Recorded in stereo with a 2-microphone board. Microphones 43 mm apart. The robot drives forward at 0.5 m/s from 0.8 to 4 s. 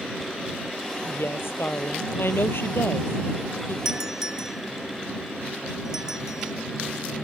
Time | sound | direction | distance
1.1 | a woman speaking | 70° left (ahead or behind) | ?
3.9 | a doorbell | 10° right (ahead or behind) | ?